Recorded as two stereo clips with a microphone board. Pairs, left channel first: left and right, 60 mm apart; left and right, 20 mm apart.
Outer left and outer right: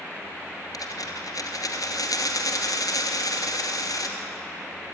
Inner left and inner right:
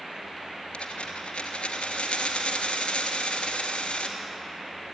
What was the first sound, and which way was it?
A dropped coin, 80° left.